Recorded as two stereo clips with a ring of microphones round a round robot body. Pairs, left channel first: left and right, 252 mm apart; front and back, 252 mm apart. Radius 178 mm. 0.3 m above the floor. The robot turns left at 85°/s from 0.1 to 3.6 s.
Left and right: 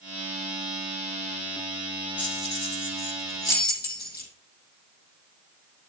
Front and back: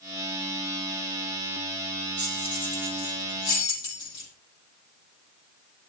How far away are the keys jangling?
About 7.5 m.